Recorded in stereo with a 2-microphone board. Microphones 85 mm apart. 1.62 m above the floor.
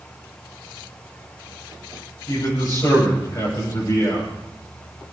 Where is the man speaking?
40° left (ahead or behind), 8.5 m.